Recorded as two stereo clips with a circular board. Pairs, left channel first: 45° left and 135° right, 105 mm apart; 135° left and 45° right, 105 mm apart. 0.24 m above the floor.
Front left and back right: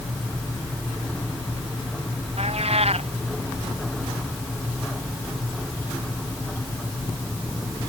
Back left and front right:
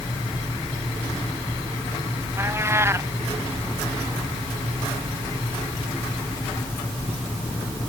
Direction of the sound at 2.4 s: 110° right.